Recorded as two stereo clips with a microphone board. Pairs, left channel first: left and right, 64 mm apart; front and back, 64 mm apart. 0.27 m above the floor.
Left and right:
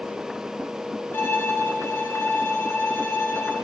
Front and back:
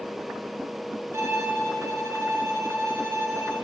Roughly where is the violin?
Behind left.